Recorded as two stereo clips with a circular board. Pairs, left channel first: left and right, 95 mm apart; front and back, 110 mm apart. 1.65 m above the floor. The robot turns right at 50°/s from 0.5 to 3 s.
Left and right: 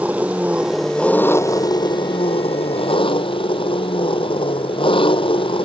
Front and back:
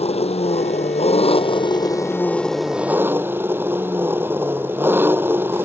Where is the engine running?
15° right; by 5.6 s 110° left.